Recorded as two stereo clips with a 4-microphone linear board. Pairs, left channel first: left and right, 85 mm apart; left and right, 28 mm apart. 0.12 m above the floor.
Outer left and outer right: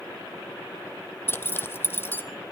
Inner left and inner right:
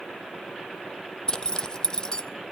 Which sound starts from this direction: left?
A zipper, at 1.3 s.